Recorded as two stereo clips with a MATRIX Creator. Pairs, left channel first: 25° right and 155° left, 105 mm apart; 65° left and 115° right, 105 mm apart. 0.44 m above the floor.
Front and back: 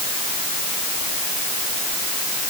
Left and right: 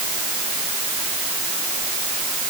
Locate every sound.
Only background noise.